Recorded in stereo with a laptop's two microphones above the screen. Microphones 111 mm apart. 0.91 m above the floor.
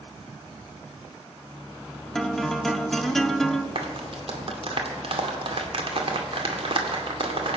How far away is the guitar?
About 0.8 m.